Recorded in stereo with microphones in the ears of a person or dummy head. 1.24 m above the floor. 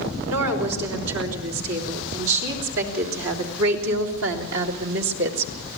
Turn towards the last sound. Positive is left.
turn(degrees=-65)  # may be behind; listen again after turning